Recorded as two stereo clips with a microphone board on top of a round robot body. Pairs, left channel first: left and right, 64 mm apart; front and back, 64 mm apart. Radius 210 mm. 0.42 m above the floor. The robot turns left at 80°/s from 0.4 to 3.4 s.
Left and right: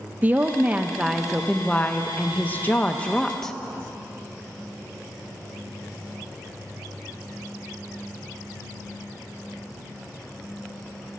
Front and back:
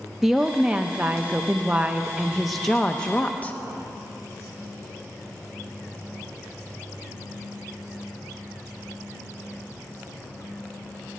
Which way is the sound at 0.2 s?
100° right.